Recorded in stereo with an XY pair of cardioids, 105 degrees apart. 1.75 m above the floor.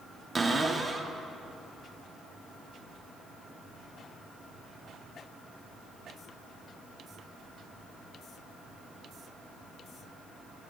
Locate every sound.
0.3 s a cupboard door: 20° right, 1.2 m